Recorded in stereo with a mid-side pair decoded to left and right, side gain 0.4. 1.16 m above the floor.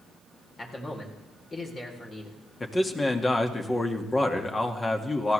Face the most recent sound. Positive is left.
turn(degrees=25)